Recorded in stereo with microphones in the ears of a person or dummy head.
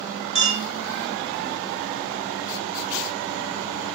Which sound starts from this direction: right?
A clink, at 0.3 s.